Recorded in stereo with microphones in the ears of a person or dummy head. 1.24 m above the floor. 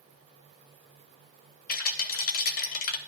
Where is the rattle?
55° left (ahead or behind), 1.6 m.